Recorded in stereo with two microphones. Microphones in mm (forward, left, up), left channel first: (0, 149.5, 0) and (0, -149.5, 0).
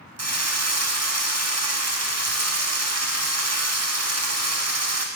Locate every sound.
0.2 s a drill: 55° right (ahead or behind), 0.7 m